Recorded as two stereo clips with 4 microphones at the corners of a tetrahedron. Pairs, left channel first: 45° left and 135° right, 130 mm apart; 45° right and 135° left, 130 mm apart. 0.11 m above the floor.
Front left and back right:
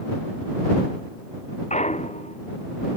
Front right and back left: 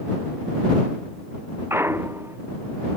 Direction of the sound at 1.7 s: 65° left.